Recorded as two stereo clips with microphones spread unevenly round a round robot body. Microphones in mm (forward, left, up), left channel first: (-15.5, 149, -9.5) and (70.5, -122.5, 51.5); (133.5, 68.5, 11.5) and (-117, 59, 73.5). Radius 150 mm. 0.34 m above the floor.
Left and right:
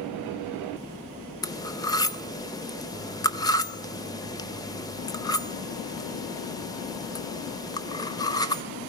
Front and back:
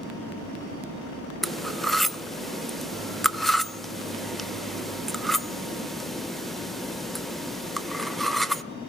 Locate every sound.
1.4 s cutlery clinking: 65° left, 0.5 m